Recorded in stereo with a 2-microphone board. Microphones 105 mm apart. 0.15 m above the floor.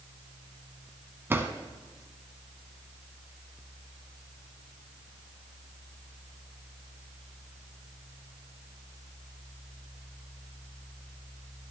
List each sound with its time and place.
1.3 s a drawer: 20° right (ahead or behind), 0.8 m